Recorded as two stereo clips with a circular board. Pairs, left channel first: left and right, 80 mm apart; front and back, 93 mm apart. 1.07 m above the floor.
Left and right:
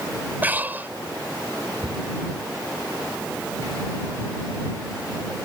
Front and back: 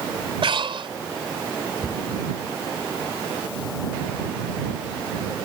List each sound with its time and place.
0.4 s breathing: 155° right
1.8 s a cupboard door: 90° right